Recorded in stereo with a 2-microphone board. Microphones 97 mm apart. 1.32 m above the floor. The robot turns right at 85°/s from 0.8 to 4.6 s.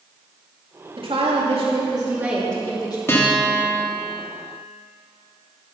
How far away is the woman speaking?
About 2.5 m.